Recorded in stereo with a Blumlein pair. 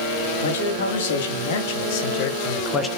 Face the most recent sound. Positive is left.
turn(degrees=15)